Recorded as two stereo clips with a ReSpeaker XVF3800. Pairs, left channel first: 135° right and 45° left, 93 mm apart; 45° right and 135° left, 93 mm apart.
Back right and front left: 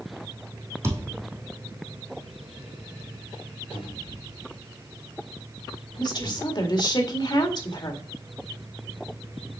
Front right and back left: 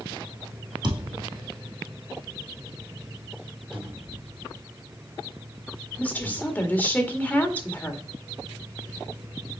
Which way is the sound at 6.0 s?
115° right.